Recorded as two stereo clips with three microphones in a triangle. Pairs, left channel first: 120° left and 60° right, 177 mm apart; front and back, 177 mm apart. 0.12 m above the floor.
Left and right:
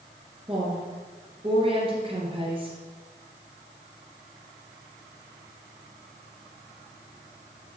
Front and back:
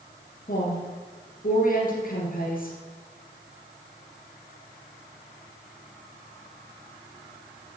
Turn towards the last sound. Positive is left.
turn(degrees=-10)